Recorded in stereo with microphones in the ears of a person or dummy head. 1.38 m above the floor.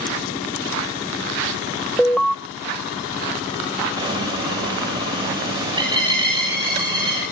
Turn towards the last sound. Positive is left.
turn(degrees=-30)  # may be behind; listen again after turning